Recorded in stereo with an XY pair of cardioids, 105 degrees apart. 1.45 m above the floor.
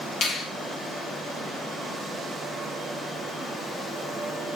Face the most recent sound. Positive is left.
turn(degrees=70)